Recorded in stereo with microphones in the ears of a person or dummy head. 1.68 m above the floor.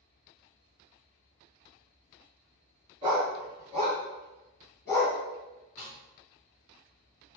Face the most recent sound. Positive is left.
turn(degrees=10)  # may be behind; listen again after turning